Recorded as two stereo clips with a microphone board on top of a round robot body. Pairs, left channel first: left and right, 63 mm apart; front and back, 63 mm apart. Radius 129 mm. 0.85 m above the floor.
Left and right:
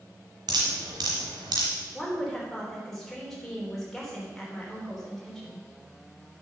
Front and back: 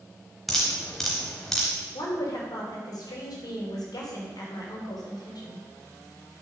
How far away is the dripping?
About 0.8 m.